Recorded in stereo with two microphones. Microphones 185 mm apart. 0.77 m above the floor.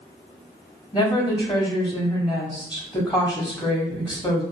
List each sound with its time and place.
0.9 s a woman speaking: 25° left (ahead or behind), 1.5 m